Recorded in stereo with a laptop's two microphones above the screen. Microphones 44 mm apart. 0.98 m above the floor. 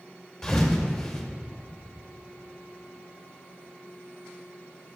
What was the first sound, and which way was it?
A thud, 10° left (ahead or behind).